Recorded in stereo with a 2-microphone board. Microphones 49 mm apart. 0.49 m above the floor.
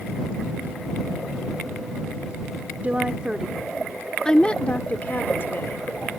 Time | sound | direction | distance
2.8 | a woman speaking | 30° right (ahead or behind) | ?